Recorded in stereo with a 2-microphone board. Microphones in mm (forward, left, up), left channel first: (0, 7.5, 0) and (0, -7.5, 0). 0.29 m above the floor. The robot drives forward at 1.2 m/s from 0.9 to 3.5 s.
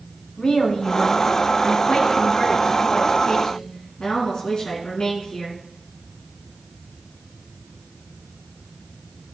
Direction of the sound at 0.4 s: 60° left (ahead or behind).